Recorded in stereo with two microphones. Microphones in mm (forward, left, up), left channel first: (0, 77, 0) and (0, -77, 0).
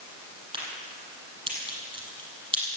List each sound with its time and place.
0.5 s a crack: 35° right (ahead or behind), 5.5 m